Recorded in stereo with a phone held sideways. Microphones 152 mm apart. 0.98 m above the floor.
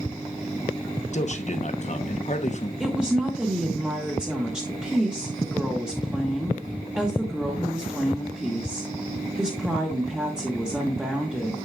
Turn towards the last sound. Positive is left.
turn(degrees=-5)  # may be behind; listen again after turning